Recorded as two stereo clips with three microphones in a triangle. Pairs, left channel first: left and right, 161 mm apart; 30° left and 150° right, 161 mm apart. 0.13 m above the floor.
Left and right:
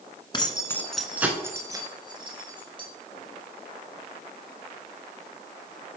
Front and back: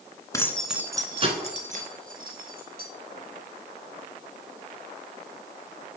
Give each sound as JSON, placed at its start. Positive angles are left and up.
{"t": 0.3, "sound": "keys jangling", "azimuth_deg": 80, "distance_m": 0.9}